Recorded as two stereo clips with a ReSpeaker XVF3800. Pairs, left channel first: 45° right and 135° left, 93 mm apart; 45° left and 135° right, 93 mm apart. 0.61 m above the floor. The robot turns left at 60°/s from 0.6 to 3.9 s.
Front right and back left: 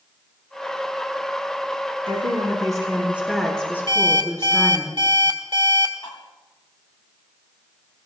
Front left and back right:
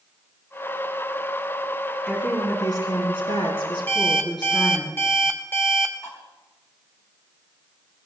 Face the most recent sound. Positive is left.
turn(degrees=-15)